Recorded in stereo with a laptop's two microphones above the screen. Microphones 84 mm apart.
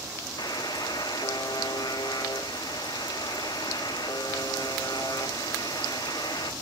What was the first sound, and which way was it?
A buzzer, 60° left (ahead or behind).